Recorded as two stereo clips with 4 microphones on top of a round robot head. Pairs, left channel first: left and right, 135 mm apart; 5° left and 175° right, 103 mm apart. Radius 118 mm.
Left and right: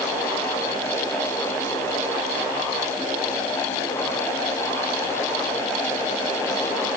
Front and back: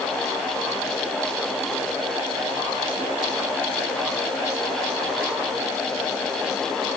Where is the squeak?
No squeak in this recording.